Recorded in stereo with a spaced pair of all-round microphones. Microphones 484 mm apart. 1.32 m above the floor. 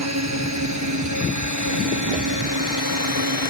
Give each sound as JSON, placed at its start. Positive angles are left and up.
{"t": 0.0, "sound": "a drone", "side_deg": -35}